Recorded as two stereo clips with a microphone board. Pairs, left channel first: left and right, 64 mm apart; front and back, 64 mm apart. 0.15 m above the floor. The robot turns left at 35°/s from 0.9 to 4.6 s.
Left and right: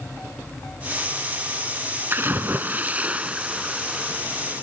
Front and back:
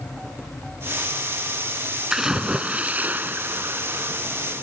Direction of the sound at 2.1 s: 105° right.